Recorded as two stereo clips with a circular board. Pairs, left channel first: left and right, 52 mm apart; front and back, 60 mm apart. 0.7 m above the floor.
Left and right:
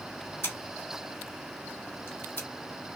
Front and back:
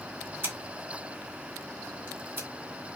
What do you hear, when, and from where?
0.4 s scissors: 125° left, 2.5 m